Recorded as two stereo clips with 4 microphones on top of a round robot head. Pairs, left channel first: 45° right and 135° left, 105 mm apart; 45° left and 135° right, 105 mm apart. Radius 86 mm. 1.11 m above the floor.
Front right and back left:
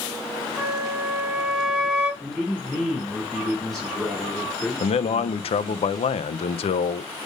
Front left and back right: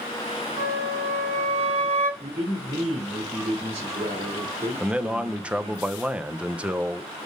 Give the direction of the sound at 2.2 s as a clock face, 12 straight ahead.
4 o'clock.